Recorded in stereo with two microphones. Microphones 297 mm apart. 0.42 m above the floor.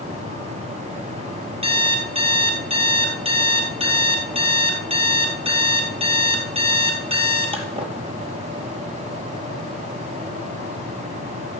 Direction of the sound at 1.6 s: 20° right (ahead or behind).